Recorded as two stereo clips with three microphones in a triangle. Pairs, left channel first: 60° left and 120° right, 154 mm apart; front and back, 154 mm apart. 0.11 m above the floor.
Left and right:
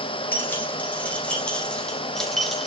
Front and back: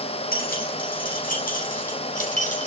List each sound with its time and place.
0.3 s keys jangling: 20° right, 4.5 m; by 2.7 s 30° right, 3 m